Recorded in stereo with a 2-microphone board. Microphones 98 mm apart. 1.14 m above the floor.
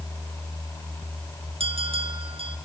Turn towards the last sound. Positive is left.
turn(degrees=-75)  # may be behind; listen again after turning